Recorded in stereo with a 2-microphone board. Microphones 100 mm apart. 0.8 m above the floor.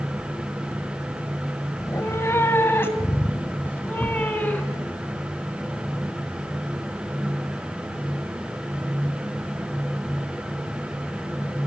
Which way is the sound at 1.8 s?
30° left (ahead or behind).